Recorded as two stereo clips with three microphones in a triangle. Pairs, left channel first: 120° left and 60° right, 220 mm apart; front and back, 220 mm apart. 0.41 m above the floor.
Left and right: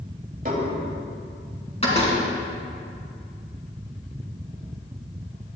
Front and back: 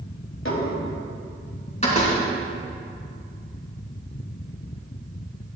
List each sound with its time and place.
0.5 s dishes clattering: 10° right, 1.5 m
1.8 s a door slam: 60° left, 3 m